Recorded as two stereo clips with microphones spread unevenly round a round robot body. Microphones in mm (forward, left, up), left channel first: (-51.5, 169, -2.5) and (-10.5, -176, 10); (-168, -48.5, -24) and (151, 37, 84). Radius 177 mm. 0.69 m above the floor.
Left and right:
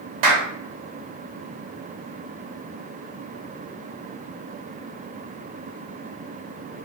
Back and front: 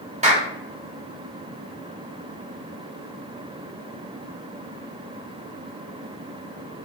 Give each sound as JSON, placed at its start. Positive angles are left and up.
{"t": 0.2, "sound": "a clap", "azimuth_deg": -65, "distance_m": 1.3}